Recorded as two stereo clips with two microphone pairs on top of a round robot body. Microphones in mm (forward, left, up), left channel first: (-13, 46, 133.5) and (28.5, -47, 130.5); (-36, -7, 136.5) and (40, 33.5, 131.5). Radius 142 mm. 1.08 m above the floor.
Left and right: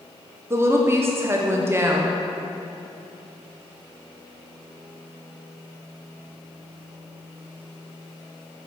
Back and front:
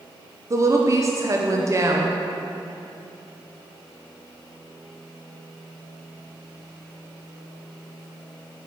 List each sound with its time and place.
0.5 s a woman speaking: 10° right, 0.8 m